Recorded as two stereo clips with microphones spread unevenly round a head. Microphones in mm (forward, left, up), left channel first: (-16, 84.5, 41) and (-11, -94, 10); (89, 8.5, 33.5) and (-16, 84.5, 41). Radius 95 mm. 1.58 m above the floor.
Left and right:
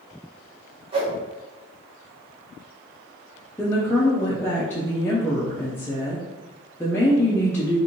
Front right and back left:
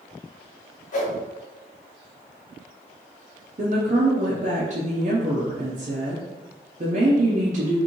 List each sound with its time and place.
0.9 s a whoosh: 20° right, 1.0 m
3.6 s a woman speaking: 155° left, 0.6 m